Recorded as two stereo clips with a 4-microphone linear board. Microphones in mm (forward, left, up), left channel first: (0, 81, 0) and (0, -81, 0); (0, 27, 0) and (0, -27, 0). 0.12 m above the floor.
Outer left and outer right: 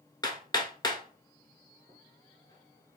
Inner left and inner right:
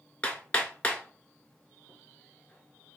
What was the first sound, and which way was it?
Hammering, 25° left (ahead or behind).